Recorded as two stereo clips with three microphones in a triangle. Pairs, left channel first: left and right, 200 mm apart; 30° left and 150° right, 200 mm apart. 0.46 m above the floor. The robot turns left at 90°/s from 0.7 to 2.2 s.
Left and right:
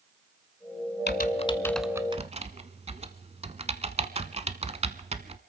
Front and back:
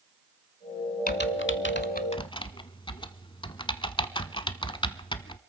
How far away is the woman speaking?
No woman speaking in this recording.